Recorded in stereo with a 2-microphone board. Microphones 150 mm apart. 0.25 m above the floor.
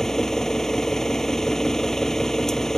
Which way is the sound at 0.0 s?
5° left (ahead or behind).